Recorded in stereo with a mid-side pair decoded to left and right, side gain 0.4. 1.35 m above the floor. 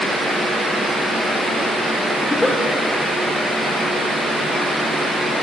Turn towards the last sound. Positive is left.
turn(degrees=20)